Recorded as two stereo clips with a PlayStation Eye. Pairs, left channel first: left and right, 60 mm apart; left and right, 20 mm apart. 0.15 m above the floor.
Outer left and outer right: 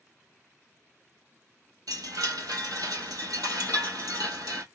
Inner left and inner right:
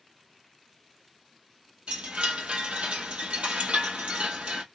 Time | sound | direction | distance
1.9 | a chime | 75° right (ahead or behind) | 1.6 m